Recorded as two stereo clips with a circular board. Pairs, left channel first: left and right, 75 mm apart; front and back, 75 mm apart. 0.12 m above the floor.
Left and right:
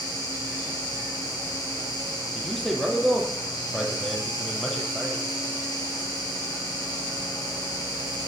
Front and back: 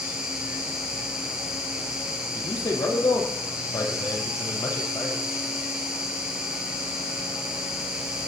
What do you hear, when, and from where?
0.0 s an insect: 105° left, 5.5 m
2.4 s a man speaking: 5° left, 3.5 m